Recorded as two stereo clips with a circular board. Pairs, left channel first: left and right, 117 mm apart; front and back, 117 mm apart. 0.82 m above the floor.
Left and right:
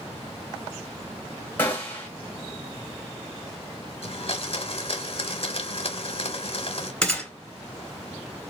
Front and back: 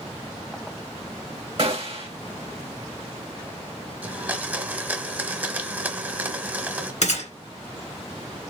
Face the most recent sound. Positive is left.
turn(degrees=10)